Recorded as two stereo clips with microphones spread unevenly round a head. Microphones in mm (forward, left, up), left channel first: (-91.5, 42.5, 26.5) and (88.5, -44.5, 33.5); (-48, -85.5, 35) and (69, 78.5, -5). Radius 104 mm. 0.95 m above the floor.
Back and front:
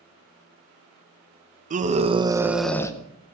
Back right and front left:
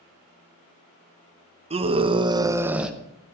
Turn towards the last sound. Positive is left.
turn(degrees=120)